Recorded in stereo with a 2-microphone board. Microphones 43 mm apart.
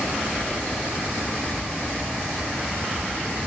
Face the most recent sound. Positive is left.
turn(degrees=-5)  # may be behind; listen again after turning